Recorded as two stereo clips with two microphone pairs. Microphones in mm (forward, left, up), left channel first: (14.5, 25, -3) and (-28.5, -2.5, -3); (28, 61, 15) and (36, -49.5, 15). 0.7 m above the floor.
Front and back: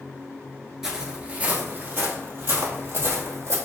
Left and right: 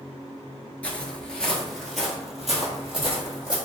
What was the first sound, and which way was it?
Footsteps, 145° left.